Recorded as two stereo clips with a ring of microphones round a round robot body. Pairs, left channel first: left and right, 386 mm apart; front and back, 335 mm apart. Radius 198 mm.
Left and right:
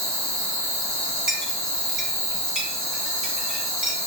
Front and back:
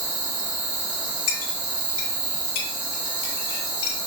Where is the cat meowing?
No cat meowing in this recording.